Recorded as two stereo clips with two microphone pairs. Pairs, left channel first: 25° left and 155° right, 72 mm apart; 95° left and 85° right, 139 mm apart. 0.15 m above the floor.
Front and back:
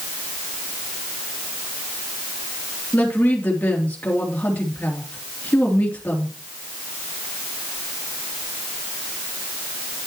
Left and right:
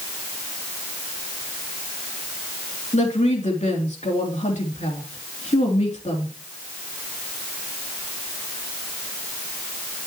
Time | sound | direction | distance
2.9 | a woman speaking | 85° left | 3 m